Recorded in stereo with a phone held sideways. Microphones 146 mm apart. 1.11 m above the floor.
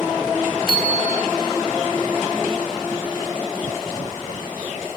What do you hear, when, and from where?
0.7 s a bicycle bell: 85° right, 5 m